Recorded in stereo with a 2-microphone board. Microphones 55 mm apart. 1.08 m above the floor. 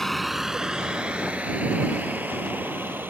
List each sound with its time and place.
0.0 s a vehicle: 5° left (ahead or behind); by 3.1 s 40° right (ahead or behind)